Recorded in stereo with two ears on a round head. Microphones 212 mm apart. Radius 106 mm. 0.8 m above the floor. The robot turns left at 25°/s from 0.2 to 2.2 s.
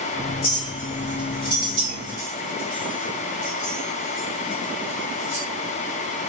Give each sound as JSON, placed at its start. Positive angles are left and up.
{"t": 0.4, "sound": "a clink", "side_deg": 35, "distance_m": 2.5}